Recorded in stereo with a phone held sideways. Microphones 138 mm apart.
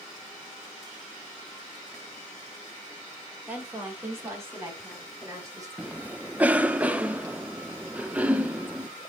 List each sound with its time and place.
3.5 s a woman speaking: 10° right (ahead or behind), 2 m; by 5.7 s 20° right (ahead or behind), 4 m
5.8 s a cough: 10° right (ahead or behind), 0.8 m